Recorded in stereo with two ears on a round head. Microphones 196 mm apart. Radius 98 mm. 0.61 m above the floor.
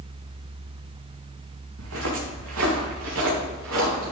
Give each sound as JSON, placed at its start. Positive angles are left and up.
{"t": 1.8, "sound": "footsteps", "side_deg": -70, "distance_m": 3.5}